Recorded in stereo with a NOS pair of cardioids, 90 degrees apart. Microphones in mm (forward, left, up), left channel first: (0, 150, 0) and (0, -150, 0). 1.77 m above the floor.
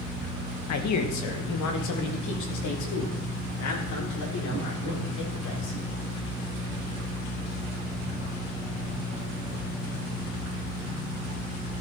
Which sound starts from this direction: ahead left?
A man speaking, at 0.7 s.